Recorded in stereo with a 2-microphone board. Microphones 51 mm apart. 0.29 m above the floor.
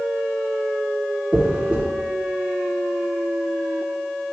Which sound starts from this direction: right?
A dropped coin, at 1.3 s.